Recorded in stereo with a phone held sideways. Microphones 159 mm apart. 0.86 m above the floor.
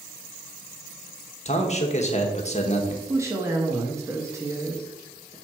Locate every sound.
1.4 s a man speaking: 45° left (ahead or behind), 1.2 m
3.1 s a woman speaking: 20° right (ahead or behind), 0.9 m